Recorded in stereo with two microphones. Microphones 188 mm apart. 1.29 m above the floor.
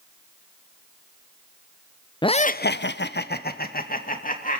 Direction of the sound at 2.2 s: 25° left (ahead or behind).